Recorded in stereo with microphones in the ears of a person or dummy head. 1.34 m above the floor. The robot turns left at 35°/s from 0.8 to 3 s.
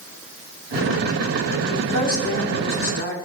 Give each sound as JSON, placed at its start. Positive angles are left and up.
{"t": 1.7, "sound": "a woman speaking", "azimuth_deg": 100, "distance_m": 4.5}